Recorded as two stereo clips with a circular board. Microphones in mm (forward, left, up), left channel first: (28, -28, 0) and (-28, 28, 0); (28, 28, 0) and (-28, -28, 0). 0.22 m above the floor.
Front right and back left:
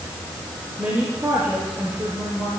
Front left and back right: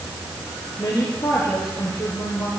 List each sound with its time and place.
0.8 s a woman speaking: 90° left, 4.5 m